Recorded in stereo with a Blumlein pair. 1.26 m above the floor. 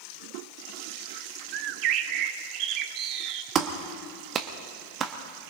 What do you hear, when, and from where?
1.5 s a bird: 40° right, 0.8 m
3.5 s a clap: 30° right, 1.2 m